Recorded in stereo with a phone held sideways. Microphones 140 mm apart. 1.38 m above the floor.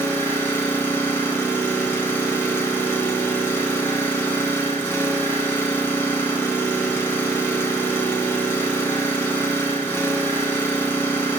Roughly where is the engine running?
Centre.